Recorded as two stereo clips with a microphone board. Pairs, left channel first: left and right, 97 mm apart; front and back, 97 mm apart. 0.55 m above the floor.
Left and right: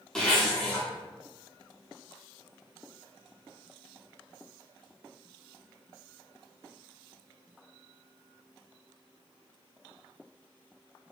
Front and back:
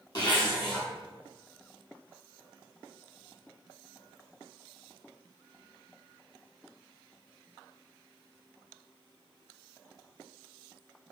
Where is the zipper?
10° left, 1.0 m.